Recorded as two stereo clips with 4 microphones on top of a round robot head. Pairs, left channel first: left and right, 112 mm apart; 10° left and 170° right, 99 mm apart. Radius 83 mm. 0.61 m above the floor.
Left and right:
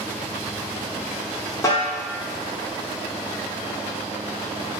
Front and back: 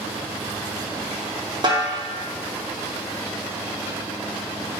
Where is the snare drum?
155° left, 1.5 m.